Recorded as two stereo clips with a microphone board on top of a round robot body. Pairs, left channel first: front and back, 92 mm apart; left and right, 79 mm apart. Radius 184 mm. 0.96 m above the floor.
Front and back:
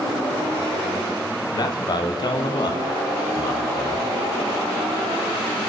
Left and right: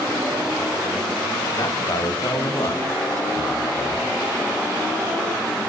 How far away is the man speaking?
About 1.1 m.